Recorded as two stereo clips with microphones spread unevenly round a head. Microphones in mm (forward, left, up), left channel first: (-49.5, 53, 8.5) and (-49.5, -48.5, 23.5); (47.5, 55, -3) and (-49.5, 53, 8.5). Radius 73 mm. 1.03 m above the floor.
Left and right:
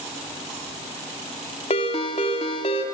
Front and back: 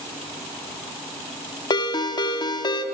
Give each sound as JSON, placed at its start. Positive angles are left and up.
{"t": 1.7, "sound": "a ringtone", "azimuth_deg": 45, "distance_m": 1.8}